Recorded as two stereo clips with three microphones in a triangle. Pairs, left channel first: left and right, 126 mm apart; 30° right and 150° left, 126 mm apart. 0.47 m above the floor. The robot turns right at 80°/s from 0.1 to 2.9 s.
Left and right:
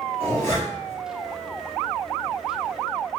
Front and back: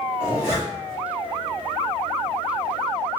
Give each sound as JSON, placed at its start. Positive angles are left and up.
{"t": 0.2, "sound": "a zipper", "azimuth_deg": 80, "distance_m": 1.2}